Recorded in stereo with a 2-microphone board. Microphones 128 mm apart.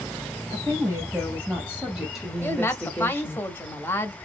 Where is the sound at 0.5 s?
25° right (ahead or behind), 1.8 m; by 3.4 s 20° left (ahead or behind), 1.2 m.